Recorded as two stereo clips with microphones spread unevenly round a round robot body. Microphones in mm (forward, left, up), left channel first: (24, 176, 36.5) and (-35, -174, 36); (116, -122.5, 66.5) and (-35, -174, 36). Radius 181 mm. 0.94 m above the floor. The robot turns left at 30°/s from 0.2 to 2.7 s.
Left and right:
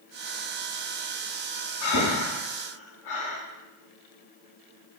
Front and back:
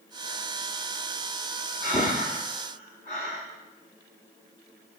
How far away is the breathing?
About 1.1 m.